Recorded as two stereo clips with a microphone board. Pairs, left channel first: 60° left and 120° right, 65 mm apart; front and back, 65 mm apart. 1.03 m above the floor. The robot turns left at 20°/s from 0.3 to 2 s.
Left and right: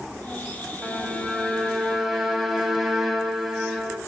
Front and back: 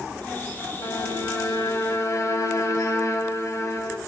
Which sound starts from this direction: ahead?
A violin, at 0.8 s.